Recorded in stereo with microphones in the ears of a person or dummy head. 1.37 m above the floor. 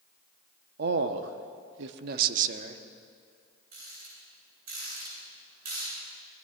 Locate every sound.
0.8 s a man speaking: 50° right (ahead or behind), 1.0 m; by 2.8 s 40° right (ahead or behind), 1.4 m
3.7 s a rattle: 50° right (ahead or behind), 7.5 m